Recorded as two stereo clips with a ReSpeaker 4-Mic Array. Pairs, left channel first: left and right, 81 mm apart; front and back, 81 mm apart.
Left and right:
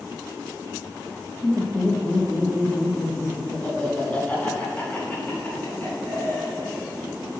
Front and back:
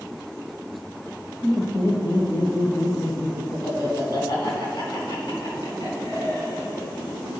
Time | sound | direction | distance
1.4 | laughter | 5° left | 2 m